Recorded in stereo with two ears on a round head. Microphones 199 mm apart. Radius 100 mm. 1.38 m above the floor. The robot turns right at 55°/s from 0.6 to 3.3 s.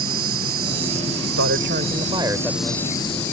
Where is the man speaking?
65° right; by 2.8 s 15° left.